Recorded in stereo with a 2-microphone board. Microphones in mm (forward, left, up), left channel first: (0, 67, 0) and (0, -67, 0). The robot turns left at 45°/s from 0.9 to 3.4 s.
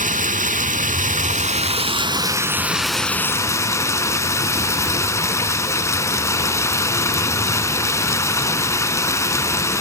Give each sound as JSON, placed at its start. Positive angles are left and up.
{"t": 0.0, "sound": "running water", "azimuth_deg": -90, "distance_m": 0.8}